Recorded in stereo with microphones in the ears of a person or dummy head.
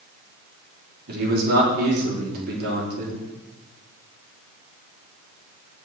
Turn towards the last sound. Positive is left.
turn(degrees=-60)  # may be behind; listen again after turning